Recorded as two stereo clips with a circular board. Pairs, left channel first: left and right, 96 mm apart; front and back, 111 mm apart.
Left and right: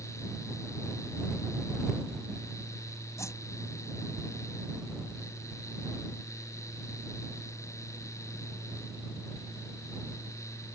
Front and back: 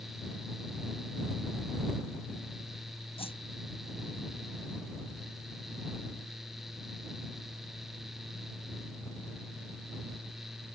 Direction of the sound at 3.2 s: 30° left.